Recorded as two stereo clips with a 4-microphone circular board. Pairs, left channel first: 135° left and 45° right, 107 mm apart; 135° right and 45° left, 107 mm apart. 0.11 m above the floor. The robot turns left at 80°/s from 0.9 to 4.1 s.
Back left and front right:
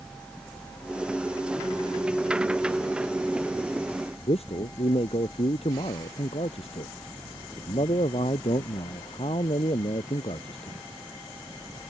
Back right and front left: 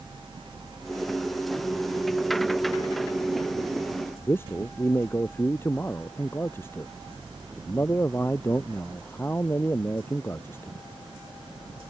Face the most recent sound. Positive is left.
turn(degrees=155)